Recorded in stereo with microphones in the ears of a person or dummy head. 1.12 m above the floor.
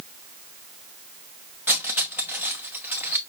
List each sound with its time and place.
1.7 s cutlery clinking: 10° right (ahead or behind), 0.8 m